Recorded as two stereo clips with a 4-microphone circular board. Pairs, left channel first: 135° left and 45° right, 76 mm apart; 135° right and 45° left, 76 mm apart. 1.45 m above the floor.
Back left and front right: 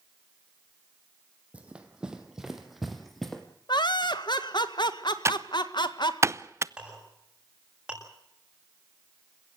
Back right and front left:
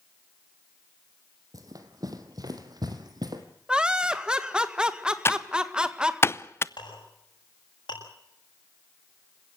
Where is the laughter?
125° left, 1.7 m.